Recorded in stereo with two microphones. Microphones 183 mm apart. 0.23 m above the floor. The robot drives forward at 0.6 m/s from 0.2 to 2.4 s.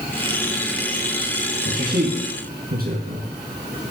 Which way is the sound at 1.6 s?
55° right (ahead or behind).